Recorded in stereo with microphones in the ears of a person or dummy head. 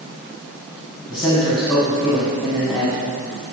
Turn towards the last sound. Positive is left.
turn(degrees=30)  # may be behind; listen again after turning